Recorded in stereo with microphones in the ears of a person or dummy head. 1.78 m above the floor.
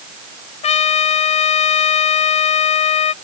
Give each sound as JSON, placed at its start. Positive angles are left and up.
{"t": 0.6, "sound": "a trumpet", "side_deg": 40}